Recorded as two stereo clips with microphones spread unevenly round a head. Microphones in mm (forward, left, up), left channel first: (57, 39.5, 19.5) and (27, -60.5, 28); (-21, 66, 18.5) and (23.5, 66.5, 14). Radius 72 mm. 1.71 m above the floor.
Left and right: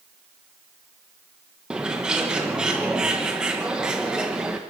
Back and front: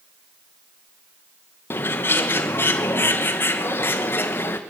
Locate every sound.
1.7 s a bird: 175° left, 1.2 m